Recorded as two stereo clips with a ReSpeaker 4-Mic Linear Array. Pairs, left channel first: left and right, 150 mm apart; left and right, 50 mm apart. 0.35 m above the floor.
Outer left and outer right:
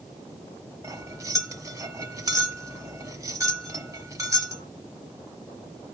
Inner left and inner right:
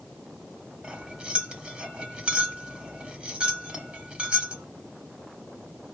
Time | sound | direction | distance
0.8 | cutlery clinking | 25° right (ahead or behind) | 1.1 m